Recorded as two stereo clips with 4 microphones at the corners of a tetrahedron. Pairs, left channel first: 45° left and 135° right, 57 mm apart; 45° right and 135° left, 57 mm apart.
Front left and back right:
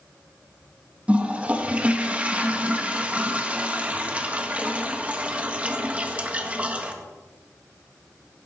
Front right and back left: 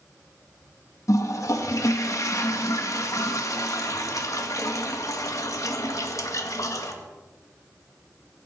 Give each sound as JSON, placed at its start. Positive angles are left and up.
{"t": 1.1, "sound": "a toilet flushing", "azimuth_deg": -65, "distance_m": 1.6}